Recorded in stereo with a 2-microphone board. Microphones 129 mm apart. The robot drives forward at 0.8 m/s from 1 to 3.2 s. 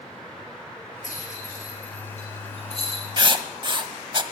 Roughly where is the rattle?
Left.